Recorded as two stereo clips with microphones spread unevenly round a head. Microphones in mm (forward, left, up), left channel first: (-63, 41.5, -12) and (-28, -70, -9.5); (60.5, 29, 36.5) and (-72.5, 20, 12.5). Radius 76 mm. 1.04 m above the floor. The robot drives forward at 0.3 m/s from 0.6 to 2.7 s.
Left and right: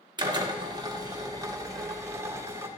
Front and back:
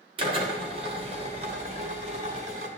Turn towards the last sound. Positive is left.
turn(degrees=-135)